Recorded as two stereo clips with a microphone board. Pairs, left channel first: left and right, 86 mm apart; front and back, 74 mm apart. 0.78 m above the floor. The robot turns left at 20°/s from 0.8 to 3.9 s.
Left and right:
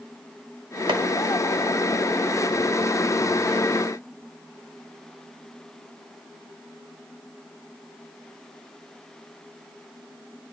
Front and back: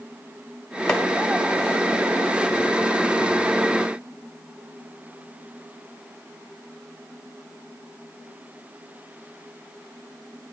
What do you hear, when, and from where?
0.9 s chopping: 85° right, 1.0 m